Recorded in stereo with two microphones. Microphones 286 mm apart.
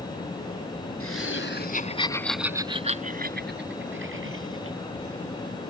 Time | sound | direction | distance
1.0 | laughter | 60° left (ahead or behind) | ?